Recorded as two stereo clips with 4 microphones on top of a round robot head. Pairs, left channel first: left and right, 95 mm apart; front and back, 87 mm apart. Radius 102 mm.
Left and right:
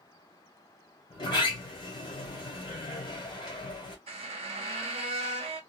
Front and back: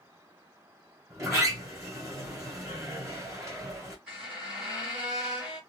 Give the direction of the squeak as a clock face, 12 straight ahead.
4 o'clock.